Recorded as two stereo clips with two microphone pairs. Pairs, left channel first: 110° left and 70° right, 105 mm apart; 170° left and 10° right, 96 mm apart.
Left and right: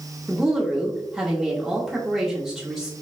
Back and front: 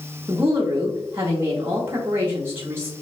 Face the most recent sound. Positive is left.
turn(degrees=15)